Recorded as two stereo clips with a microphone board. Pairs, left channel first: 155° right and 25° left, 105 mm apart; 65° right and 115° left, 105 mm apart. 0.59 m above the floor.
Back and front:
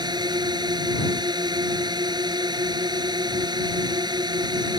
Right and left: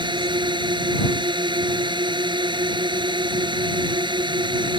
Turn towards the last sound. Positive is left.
turn(degrees=70)